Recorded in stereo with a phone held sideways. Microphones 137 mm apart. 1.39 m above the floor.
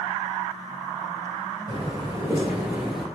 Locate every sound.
1.7 s footsteps: 35° right (ahead or behind), 1.6 m; by 3.1 s centre (ahead or behind), 1.3 m